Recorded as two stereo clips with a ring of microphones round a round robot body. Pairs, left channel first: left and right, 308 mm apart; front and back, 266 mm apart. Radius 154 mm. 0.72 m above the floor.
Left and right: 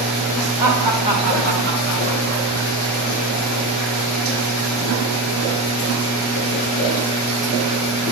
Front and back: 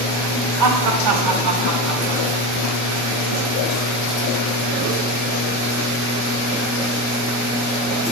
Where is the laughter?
170° right, 2 m; by 2.5 s 135° right, 1.9 m.